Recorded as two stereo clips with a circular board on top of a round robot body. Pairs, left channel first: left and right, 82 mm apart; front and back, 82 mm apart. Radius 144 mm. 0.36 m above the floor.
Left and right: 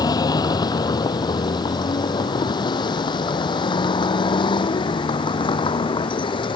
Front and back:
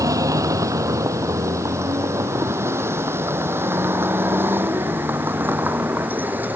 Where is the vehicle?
130° left; by 6.6 s 110° left.